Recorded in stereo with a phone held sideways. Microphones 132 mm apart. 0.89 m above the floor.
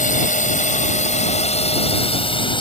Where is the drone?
80° left; by 2.6 s 40° left (ahead or behind).